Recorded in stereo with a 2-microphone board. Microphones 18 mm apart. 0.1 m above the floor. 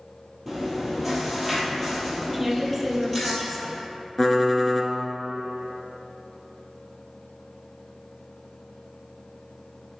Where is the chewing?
5° left (ahead or behind), 2 m.